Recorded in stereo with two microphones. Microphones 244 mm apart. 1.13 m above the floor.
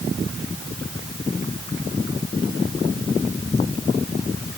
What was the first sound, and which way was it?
Only background noise.